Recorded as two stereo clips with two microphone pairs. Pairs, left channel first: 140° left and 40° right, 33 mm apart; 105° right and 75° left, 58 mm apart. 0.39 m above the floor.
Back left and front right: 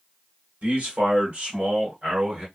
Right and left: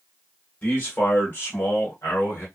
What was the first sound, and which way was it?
A man speaking, 45° right.